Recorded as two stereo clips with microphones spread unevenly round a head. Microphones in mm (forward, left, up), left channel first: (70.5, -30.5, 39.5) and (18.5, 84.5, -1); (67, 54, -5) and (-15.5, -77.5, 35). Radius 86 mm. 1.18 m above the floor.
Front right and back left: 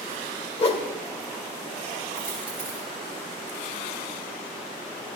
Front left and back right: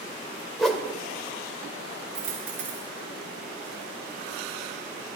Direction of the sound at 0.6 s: 35° right.